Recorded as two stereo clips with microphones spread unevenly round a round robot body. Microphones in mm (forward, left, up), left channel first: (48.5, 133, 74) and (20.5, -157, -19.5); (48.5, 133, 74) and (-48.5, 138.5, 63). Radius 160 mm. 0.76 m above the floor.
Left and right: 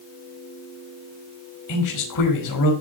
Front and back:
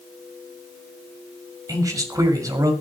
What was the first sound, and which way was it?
A man speaking, 120° left.